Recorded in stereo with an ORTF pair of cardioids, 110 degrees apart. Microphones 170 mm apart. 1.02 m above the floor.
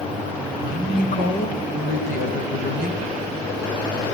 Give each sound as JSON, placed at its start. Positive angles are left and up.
{"t": 0.6, "sound": "a woman speaking", "azimuth_deg": 55, "distance_m": 5.0}